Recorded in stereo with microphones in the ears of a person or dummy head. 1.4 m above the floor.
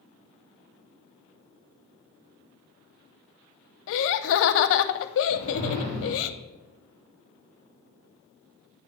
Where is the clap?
I don't hear a clap.